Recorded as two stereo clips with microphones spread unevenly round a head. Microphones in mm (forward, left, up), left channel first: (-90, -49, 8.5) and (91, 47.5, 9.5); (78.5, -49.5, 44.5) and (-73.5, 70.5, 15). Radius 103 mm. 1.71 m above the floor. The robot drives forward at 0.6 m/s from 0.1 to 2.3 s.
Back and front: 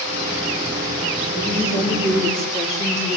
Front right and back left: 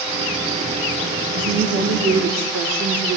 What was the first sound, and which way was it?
A woman speaking, 130° left.